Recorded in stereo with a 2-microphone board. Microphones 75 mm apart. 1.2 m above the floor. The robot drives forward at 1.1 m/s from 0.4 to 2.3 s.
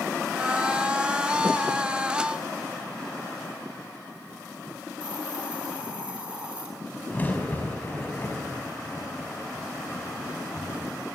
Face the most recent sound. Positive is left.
turn(degrees=25)  # may be behind; listen again after turning